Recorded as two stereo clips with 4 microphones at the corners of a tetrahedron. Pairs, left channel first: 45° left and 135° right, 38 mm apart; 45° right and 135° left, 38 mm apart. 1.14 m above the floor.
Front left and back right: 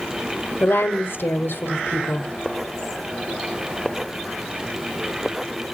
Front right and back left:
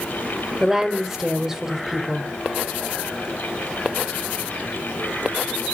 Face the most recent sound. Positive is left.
turn(degrees=60)